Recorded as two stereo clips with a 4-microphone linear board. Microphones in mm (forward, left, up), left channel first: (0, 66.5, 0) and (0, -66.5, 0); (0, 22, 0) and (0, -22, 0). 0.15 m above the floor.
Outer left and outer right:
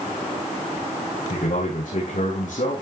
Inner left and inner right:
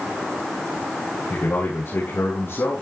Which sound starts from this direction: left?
A man speaking, at 1.3 s.